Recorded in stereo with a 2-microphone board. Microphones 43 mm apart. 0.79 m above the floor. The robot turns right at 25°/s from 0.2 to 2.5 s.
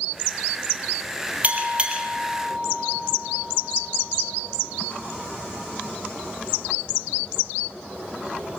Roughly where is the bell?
Right.